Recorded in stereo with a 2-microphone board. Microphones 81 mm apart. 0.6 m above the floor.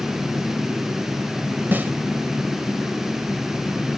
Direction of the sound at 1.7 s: 25° right (ahead or behind).